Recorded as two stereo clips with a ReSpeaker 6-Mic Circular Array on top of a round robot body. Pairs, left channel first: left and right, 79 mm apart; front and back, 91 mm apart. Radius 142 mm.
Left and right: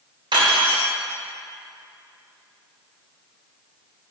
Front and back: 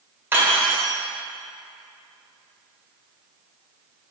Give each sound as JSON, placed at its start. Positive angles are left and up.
{"t": 0.3, "sound": "cutlery clinking", "azimuth_deg": -110, "distance_m": 1.7}